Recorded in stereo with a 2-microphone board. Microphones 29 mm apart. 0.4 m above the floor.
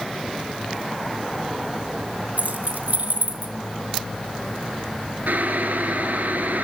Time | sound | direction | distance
2.4 | keys jangling | 65° right (ahead or behind) | 1.7 m
5.3 | boiling | 80° right | 2.5 m